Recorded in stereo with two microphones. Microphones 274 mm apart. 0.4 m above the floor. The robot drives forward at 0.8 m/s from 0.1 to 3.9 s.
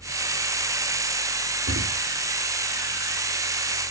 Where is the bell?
I don't hear a bell.